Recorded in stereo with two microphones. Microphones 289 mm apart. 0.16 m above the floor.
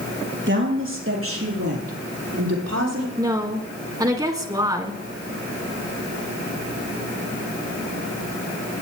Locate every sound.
0.5 s a woman speaking: 40° right (ahead or behind), 4 m; by 3.1 s 60° right (ahead or behind), 6 m
3.2 s a woman speaking: 10° right (ahead or behind), 1.8 m